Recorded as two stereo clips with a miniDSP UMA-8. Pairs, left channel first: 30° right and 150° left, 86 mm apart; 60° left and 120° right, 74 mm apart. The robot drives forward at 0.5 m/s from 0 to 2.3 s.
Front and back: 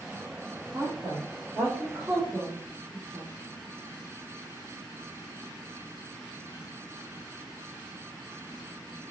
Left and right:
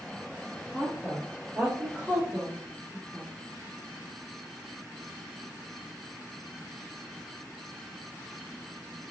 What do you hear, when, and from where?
0.7 s a woman speaking: 175° right, 1.5 m